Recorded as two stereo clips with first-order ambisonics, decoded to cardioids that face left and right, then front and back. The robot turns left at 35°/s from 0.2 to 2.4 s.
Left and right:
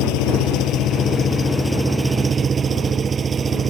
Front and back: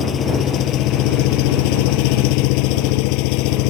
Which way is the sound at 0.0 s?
60° left.